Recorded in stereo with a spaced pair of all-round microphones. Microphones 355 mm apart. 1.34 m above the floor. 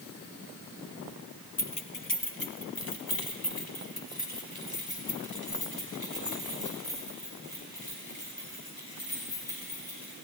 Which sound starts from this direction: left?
Keys jangling, at 1.6 s.